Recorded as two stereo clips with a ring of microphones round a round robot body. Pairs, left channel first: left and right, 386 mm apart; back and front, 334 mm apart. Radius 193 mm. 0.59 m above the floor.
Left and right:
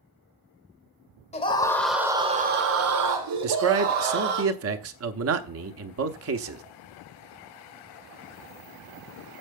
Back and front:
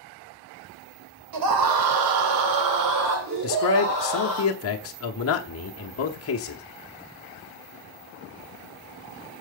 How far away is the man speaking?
About 0.9 m.